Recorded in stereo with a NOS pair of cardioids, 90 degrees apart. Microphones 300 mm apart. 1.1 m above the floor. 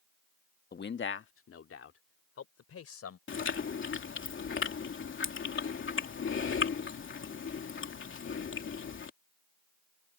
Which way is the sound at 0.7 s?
30° left.